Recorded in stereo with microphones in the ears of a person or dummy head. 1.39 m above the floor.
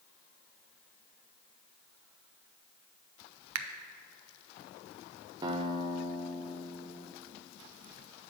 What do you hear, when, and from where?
3.5 s a finger snap: 85° right, 0.6 m
5.4 s a guitar: 20° right (ahead or behind), 0.7 m